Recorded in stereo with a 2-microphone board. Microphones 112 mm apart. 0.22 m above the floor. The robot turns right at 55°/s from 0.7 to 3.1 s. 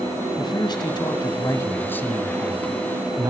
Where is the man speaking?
85° left, 1.4 m; by 3.3 s 145° right, 1.4 m.